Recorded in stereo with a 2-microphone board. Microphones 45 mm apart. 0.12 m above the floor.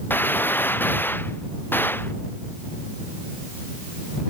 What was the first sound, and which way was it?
A gunshot, 45° left (ahead or behind).